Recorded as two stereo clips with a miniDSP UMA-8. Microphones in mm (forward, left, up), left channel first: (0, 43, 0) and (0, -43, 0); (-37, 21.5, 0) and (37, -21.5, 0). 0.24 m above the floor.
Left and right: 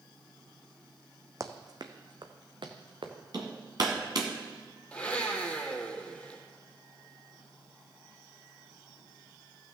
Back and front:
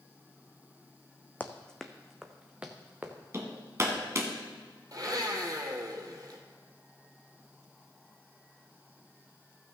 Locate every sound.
1.4 s running footsteps: 140° right, 0.9 m; by 3.1 s 100° right, 1.6 m
3.3 s hammering: 75° right, 1.8 m
4.9 s a blender: 15° left, 1.6 m